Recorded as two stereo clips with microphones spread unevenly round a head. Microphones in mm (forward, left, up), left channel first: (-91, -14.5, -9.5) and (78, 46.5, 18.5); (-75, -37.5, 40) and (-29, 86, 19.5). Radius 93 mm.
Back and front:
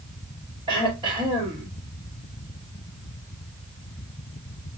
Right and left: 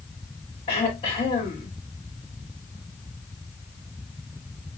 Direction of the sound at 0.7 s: 50° right.